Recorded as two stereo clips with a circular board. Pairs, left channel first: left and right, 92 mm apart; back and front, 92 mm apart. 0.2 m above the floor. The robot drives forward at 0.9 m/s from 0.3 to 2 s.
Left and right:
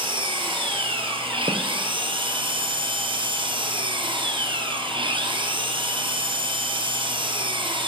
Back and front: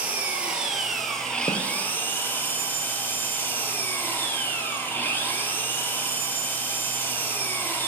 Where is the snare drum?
135° right, 2 m.